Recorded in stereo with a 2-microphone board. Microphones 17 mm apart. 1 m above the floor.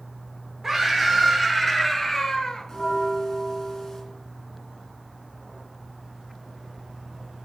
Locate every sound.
0.6 s a scream: 25° right (ahead or behind), 3 m; by 2.7 s 45° left (ahead or behind), 1.4 m
2.7 s a bell: 25° left (ahead or behind), 2.5 m